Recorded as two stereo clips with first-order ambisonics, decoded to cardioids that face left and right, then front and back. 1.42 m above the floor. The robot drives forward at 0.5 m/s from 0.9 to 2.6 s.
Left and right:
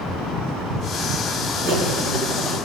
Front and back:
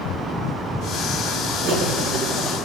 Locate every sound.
1.6 s cutlery clinking: 140° right, 3.5 m; by 2.6 s 145° right, 3.5 m